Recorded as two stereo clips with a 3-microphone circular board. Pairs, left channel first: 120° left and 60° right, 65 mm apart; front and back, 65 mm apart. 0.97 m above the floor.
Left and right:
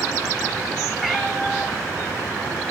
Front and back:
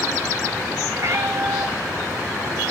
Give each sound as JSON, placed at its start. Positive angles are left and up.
{"t": 1.0, "sound": "a cat meowing", "azimuth_deg": -145, "distance_m": 1.0}